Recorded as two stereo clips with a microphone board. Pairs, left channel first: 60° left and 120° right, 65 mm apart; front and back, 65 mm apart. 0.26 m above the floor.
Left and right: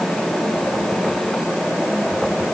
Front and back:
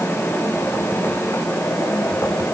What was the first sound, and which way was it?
Only background noise.